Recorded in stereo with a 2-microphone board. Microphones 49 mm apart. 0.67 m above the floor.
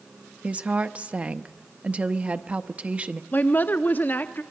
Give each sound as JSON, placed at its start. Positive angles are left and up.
{"t": 0.4, "sound": "a woman speaking", "side_deg": -25, "distance_m": 0.6}
{"t": 3.3, "sound": "a woman speaking", "side_deg": 40, "distance_m": 0.6}